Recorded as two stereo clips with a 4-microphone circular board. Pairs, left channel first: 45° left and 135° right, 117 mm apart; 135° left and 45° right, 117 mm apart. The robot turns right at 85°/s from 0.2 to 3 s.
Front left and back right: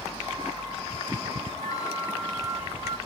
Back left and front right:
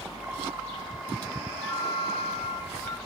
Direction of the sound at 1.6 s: 65° left.